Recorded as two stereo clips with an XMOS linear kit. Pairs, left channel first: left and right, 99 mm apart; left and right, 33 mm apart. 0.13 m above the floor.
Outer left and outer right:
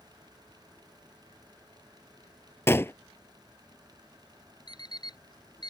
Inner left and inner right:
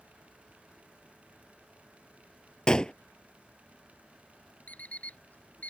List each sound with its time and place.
2.7 s a gunshot: 25° left (ahead or behind)
4.7 s an alarm clock: 45° left (ahead or behind)